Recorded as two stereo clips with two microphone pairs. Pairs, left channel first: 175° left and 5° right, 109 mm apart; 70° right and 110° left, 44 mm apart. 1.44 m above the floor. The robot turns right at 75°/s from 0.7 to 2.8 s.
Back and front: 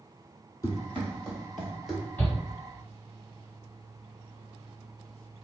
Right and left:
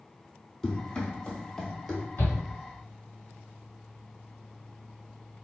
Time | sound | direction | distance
0.6 | running footsteps | 150° right | 1.8 m
2.2 | a shout | 115° right | 1.9 m